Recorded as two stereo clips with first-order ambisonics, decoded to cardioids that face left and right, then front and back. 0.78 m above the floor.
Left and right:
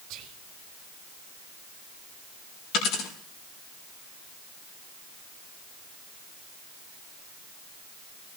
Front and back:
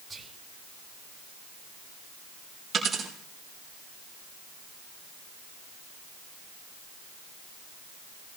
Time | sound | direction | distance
0.1 | whispering | 100° right | 2.5 m
2.7 | a dropped coin | 115° left | 5 m